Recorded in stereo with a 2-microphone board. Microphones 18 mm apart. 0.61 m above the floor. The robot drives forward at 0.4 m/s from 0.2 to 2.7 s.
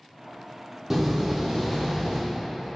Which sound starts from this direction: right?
A door slam, at 0.9 s.